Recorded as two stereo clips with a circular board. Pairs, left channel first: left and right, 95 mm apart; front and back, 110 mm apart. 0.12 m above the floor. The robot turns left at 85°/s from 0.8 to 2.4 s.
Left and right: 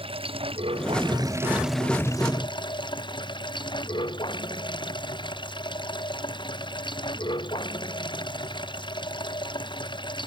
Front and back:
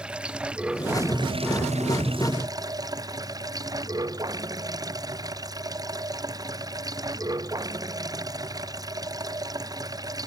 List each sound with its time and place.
0.0 s running water: 100° right; by 10.3 s 125° left